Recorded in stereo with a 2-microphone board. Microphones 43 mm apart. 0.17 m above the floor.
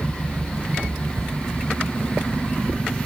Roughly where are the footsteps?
Right.